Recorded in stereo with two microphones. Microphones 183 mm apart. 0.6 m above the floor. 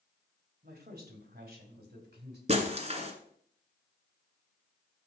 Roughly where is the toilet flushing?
I don't hear a toilet flushing.